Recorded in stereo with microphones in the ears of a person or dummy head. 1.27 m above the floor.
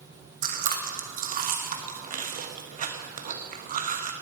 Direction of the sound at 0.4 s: 40° right (ahead or behind).